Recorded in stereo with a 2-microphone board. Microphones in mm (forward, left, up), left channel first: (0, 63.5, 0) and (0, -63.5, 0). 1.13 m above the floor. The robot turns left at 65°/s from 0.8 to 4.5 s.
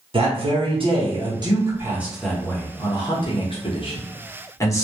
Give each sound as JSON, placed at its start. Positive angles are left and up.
{"t": 0.1, "sound": "a man speaking", "azimuth_deg": -85, "distance_m": 0.9}